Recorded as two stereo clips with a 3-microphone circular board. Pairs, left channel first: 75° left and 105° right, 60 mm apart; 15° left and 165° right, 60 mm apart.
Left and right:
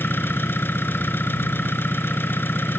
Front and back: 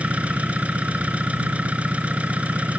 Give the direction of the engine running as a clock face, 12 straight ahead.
8 o'clock.